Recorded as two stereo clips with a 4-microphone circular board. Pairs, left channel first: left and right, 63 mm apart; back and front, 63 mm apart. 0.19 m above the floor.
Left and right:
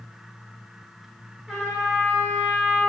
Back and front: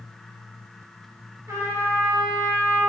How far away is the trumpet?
About 1.9 m.